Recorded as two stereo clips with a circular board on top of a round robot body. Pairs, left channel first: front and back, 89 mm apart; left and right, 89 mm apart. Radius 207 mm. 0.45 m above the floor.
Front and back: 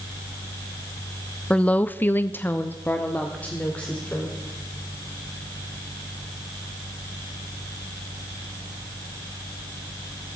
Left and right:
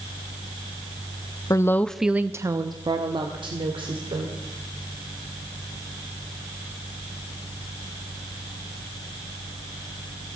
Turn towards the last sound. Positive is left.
turn(degrees=-75)